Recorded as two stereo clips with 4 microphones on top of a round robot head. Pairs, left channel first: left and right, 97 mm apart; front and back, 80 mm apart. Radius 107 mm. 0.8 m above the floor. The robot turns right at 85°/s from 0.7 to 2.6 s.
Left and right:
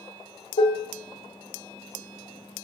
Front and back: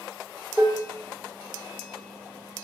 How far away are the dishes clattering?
About 0.7 m.